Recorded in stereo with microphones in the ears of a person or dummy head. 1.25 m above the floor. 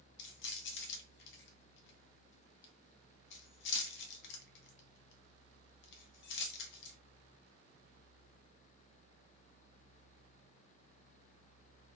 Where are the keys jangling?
60° left (ahead or behind), 0.9 m.